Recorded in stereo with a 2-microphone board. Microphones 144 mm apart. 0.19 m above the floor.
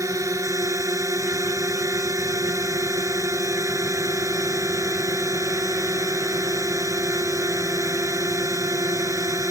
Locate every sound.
0.0 s a drone: 20° right (ahead or behind)